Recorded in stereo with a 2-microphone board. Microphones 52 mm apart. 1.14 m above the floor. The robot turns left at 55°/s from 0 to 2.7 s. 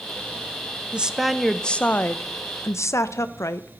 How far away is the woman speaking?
About 0.5 m.